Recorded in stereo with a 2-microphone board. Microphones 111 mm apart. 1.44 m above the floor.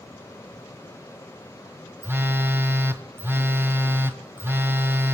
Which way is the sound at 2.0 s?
20° right (ahead or behind).